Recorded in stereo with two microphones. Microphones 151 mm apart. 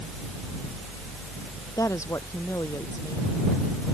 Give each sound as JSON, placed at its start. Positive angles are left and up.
{"t": 1.8, "sound": "a woman speaking", "side_deg": 20}